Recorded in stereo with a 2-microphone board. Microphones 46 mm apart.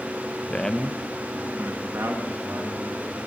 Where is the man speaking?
30° left (ahead or behind), 0.8 m; by 3.0 s 80° right, 3 m.